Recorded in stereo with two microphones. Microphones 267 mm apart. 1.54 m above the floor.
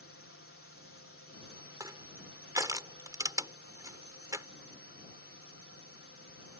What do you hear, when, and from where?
0.0 s a drone: 50° left (ahead or behind)
1.8 s crushing: 15° right (ahead or behind)